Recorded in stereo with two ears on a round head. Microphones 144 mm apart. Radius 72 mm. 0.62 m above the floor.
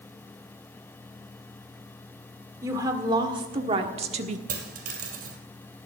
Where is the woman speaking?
20° right (ahead or behind), 1.9 m; by 4.4 s 45° right (ahead or behind), 1.3 m.